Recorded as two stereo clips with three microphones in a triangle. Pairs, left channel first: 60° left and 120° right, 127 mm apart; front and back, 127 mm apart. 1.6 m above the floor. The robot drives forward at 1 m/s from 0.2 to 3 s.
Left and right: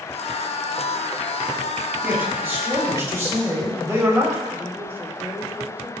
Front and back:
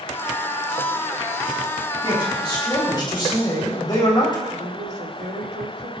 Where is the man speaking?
45° right, 5.5 m; by 4.4 s 55° right, 5 m.